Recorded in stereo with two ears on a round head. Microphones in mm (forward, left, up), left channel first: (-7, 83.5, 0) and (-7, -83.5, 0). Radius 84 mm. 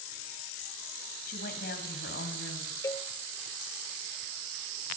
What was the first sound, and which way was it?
A woman speaking, 45° left (ahead or behind).